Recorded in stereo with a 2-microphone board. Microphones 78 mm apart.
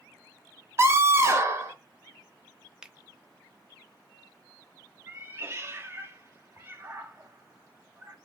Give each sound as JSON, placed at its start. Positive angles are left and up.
{"t": 0.8, "sound": "a scream", "side_deg": -35, "distance_m": 1.1}
{"t": 2.8, "sound": "a finger snap", "side_deg": -10, "distance_m": 0.7}
{"t": 5.1, "sound": "a cat meowing", "side_deg": -30, "distance_m": 0.9}